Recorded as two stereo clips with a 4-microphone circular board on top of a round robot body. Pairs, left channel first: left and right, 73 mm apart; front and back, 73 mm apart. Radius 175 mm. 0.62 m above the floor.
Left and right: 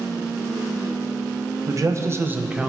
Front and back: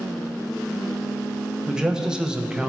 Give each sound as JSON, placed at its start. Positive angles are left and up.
{"t": 1.7, "sound": "a man speaking", "azimuth_deg": -105, "distance_m": 1.5}